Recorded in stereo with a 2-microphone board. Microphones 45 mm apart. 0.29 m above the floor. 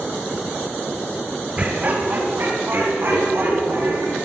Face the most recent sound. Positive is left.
turn(degrees=-60)  # may be behind; listen again after turning